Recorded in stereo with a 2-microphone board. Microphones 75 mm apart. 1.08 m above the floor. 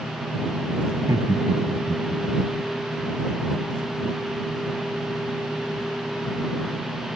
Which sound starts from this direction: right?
Laughter, at 0.9 s.